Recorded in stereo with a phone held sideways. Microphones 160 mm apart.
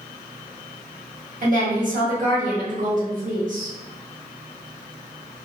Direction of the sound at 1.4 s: 55° right (ahead or behind).